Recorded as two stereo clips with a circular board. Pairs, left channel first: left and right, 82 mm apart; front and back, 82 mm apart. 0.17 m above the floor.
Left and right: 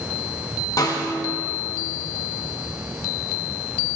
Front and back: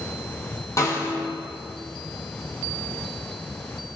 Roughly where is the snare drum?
Ahead left.